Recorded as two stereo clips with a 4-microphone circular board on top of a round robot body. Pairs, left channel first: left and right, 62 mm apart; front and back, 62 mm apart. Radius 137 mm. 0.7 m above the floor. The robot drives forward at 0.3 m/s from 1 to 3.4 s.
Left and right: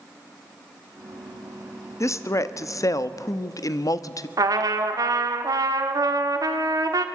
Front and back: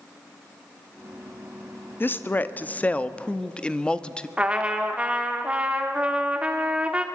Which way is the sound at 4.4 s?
110° right.